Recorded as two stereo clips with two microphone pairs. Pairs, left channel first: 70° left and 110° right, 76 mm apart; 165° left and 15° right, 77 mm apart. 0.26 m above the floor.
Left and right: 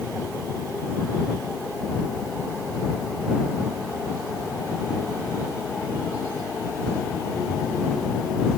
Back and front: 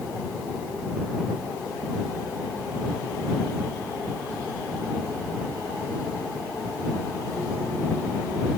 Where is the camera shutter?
I don't hear a camera shutter.